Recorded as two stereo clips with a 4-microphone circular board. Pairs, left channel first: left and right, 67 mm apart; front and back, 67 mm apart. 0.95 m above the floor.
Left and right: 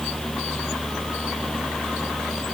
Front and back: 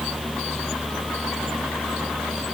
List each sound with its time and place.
Only background noise.